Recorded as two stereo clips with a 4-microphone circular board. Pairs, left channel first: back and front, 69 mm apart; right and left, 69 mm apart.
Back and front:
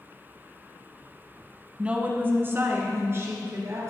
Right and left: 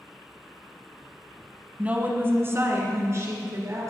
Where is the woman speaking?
50° left, 1.1 m; by 3.9 s 45° left, 3 m.